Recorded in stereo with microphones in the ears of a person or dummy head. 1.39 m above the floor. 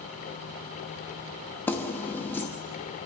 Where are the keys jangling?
10° left (ahead or behind), 1.0 m.